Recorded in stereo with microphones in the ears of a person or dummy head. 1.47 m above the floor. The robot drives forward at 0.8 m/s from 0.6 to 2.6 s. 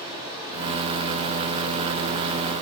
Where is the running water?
25° right (ahead or behind), 1.5 m; by 2.6 s 40° right (ahead or behind), 1.1 m.